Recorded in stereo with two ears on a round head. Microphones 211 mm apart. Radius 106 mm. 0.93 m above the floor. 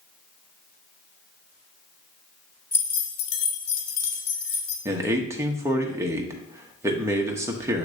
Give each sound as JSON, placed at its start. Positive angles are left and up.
{"t": 2.7, "sound": "keys jangling", "side_deg": 10, "distance_m": 0.9}
{"t": 4.8, "sound": "a man speaking", "side_deg": -15, "distance_m": 0.9}